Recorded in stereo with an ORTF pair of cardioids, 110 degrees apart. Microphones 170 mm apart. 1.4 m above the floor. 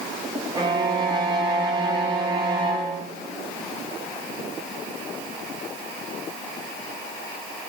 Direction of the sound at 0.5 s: 25° right.